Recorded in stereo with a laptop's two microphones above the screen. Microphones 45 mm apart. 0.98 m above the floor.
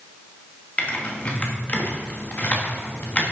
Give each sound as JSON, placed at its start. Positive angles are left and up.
{"t": 0.8, "sound": "typing on a keyboard", "side_deg": 30, "distance_m": 1.2}